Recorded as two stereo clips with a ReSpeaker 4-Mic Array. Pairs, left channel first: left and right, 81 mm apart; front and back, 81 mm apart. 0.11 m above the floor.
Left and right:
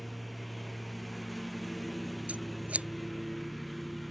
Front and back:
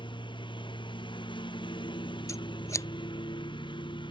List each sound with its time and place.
0.0 s a lawn mower: straight ahead
2.3 s scissors: 25° right